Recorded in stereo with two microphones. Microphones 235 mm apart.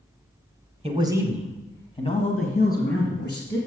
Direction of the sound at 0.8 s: 25° right (ahead or behind).